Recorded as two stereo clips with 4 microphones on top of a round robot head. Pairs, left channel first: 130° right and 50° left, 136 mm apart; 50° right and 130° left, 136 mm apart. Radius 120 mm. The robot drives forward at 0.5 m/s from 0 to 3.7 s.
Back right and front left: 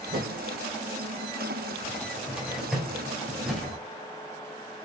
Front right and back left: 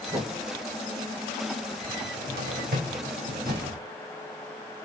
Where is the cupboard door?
130° left, 2.5 m; by 3.8 s 140° left, 3.5 m.